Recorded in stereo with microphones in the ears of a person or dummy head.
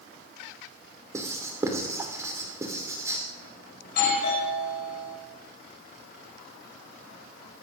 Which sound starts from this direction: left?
A doorbell, at 3.8 s.